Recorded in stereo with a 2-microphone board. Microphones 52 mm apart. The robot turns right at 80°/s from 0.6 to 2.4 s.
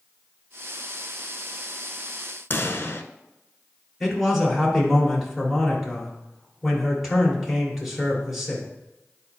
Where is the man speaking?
5° right (ahead or behind), 3 m.